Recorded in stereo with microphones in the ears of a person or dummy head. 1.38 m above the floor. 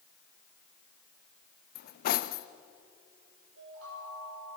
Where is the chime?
85° right, 8.5 m.